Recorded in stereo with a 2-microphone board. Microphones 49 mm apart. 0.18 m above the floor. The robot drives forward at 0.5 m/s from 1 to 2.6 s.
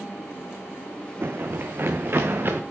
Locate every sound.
1.2 s running footsteps: 55° right (ahead or behind), 0.7 m; by 2.6 s 50° right (ahead or behind), 1.3 m